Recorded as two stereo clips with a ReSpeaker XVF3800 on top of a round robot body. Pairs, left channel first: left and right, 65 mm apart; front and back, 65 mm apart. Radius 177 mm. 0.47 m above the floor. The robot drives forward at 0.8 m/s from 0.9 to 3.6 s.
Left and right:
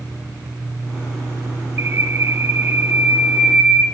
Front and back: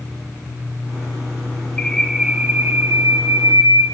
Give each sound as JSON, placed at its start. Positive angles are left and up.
{"t": 1.8, "sound": "a bird", "azimuth_deg": -65, "distance_m": 0.9}